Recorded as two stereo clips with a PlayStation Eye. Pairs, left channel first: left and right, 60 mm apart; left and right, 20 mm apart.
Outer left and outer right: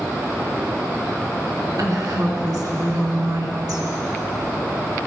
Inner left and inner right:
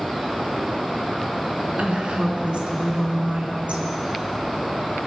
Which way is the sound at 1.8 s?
70° right (ahead or behind).